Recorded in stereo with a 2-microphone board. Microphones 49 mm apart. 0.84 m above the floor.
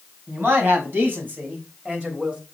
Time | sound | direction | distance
0.3 | a man speaking | 50° right (ahead or behind) | 5 m